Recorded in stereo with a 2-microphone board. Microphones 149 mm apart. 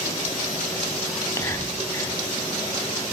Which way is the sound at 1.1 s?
20° left (ahead or behind).